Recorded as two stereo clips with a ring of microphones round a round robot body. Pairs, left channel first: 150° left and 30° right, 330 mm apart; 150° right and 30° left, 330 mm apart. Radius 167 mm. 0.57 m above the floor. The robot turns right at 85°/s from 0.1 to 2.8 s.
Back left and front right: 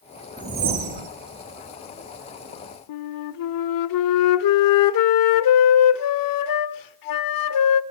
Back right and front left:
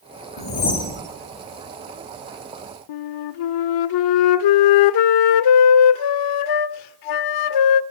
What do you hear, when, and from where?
0.4 s a whoosh: 110° right, 2.5 m; by 1.1 s 50° right, 2.5 m
2.9 s a flute: 175° right, 0.5 m